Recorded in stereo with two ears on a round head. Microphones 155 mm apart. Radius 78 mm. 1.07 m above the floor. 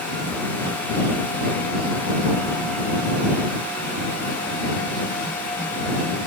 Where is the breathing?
No breathing in this recording.